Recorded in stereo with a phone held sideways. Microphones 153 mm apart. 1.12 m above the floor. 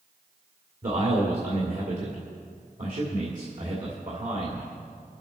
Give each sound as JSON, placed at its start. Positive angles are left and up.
{"t": 0.8, "sound": "a man speaking", "side_deg": -60, "distance_m": 2.5}